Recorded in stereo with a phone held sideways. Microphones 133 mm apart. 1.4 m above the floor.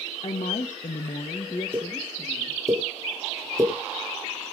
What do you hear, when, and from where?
0.2 s a woman speaking: 50° left (ahead or behind), 0.8 m; by 2.6 s 30° left (ahead or behind), 1.8 m
1.7 s a pop: 25° right (ahead or behind), 3 m